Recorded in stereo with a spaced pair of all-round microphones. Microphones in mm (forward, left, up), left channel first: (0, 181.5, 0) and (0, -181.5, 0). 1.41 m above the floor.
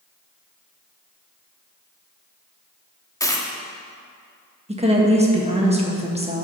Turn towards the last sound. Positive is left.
turn(degrees=-20)  # may be behind; listen again after turning